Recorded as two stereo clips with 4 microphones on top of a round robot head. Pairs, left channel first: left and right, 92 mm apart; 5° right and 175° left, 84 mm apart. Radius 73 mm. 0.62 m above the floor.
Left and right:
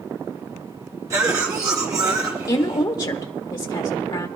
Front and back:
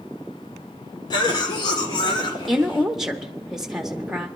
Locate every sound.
1.1 s a cough: 35° right, 2.5 m
2.5 s a woman speaking: 90° left, 1.0 m